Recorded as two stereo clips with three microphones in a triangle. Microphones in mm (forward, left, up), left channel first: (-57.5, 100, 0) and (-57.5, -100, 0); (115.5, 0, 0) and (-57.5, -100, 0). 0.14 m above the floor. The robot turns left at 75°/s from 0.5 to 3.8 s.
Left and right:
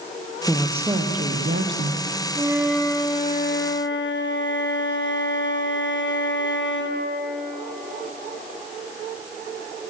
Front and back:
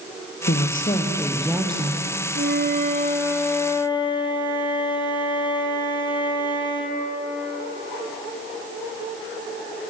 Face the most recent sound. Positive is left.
turn(degrees=95)